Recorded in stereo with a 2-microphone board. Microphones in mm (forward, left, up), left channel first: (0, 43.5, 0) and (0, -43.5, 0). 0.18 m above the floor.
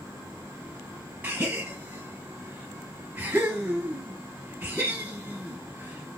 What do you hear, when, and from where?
1.2 s a gasp: 20° right (ahead or behind), 1.0 m